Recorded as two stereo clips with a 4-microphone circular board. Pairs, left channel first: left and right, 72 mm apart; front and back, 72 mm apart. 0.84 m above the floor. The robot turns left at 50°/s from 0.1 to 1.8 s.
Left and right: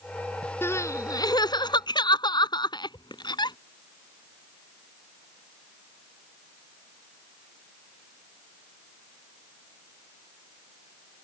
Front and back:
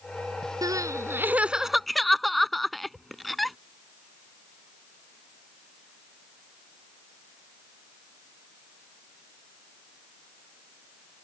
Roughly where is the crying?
Behind left.